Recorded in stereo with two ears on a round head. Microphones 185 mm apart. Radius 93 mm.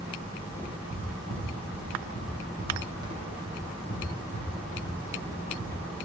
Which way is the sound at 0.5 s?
10° right (ahead or behind).